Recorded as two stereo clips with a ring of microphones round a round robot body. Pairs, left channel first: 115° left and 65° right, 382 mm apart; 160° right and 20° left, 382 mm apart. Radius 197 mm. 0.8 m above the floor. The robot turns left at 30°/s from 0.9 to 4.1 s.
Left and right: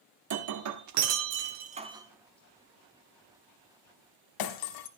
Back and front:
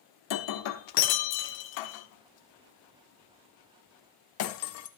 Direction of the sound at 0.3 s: 115° right.